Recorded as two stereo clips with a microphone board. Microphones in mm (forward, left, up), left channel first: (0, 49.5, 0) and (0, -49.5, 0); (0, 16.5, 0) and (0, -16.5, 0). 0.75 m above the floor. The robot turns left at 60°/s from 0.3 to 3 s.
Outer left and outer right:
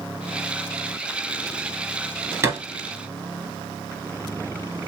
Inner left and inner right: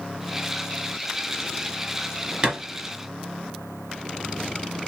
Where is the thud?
30° right (ahead or behind), 1.8 m; by 2.6 s 40° right (ahead or behind), 1.8 m.